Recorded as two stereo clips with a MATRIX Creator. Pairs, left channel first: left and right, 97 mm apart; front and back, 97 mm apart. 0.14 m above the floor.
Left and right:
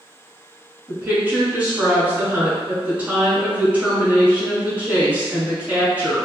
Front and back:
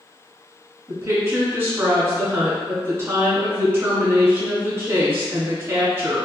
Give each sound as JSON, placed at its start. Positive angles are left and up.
{"t": 0.9, "sound": "a woman speaking", "azimuth_deg": -145, "distance_m": 1.2}